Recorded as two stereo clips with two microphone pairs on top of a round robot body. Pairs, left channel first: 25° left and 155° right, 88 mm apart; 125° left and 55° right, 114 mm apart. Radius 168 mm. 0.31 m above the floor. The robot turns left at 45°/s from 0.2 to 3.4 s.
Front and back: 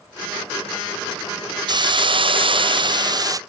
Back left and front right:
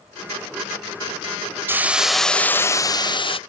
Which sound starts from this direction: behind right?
A hiss, at 1.7 s.